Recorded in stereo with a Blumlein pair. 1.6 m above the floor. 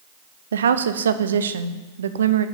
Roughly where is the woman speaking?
Ahead right.